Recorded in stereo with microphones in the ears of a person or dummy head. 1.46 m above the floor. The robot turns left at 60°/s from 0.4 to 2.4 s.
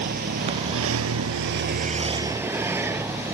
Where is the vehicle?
50° right; by 3.4 s 170° right.